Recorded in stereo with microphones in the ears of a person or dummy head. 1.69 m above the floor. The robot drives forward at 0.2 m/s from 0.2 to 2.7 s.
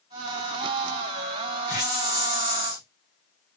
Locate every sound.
1.7 s a hiss: 15° right (ahead or behind), 0.9 m